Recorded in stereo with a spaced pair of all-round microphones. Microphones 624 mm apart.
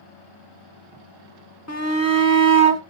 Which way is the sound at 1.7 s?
25° left (ahead or behind).